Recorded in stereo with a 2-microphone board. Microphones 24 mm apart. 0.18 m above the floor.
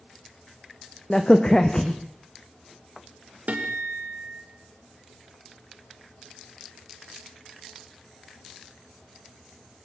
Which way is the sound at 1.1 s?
30° left (ahead or behind).